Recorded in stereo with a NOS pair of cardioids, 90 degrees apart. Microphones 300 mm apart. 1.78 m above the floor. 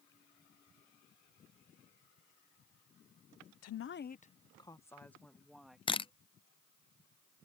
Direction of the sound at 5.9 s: 20° left.